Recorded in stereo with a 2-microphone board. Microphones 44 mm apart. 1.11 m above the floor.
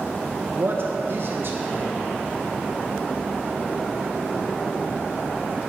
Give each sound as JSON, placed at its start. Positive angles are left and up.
{"t": 0.5, "sound": "a man speaking", "side_deg": -55, "distance_m": 0.9}